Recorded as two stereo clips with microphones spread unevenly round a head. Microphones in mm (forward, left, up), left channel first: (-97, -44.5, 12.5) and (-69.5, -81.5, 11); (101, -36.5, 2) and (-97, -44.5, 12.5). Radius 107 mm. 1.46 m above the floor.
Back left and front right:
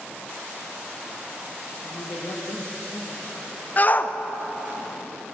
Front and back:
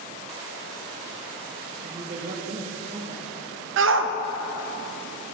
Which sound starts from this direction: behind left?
A woman speaking, at 1.8 s.